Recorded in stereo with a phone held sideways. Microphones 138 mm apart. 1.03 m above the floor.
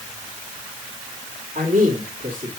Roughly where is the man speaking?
Right.